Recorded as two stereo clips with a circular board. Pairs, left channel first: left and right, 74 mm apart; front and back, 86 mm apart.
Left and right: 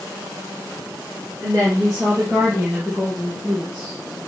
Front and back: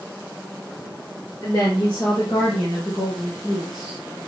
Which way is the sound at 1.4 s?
45° right.